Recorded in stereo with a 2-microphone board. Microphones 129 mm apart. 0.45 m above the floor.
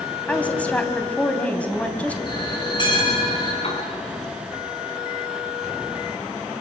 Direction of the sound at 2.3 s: 35° left (ahead or behind).